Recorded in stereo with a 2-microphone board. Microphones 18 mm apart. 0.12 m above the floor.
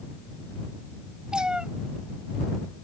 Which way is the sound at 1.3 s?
45° right (ahead or behind).